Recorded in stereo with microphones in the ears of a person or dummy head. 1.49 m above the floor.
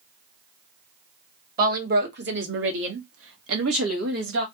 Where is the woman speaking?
50° right (ahead or behind), 1.7 m; by 4.5 s 70° right (ahead or behind), 2.0 m.